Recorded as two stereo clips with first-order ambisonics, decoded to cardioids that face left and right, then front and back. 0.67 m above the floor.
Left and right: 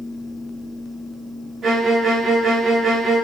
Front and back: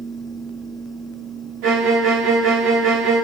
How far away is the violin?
About 1.0 m.